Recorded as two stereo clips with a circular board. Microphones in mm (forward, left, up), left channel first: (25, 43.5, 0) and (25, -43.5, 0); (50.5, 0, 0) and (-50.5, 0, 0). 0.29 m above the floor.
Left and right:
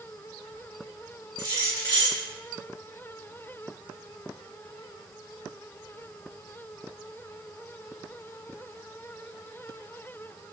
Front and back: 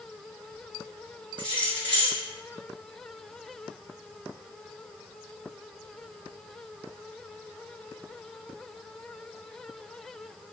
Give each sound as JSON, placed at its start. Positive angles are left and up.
{"t": 1.4, "sound": "keys jangling", "azimuth_deg": 70, "distance_m": 1.9}